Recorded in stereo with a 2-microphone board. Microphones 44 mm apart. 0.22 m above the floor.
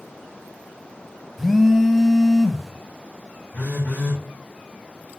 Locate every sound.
1.4 s a phone buzzing: 5° left (ahead or behind), 0.9 m
3.5 s a phone buzzing: 55° left (ahead or behind), 5.5 m